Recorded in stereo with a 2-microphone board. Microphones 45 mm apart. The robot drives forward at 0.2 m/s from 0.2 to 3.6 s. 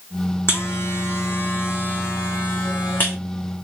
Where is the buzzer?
60° left (ahead or behind), 1.2 m; by 3.2 s 45° left (ahead or behind), 1.5 m.